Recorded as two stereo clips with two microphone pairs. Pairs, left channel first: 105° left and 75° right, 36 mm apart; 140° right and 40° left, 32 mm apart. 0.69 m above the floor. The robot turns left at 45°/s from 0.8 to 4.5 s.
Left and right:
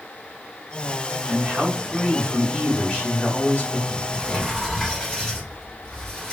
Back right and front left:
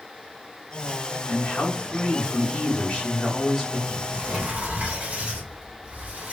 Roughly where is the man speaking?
Behind right.